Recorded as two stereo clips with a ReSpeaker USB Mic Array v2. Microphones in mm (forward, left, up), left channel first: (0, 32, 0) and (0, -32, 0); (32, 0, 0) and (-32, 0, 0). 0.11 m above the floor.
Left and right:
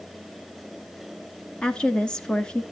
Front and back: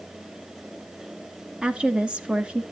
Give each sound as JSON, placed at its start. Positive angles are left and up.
{"t": 1.6, "sound": "a woman speaking", "azimuth_deg": 140, "distance_m": 1.1}